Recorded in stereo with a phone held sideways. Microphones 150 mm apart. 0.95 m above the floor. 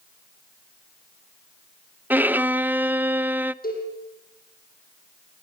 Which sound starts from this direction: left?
A cowbell, at 3.6 s.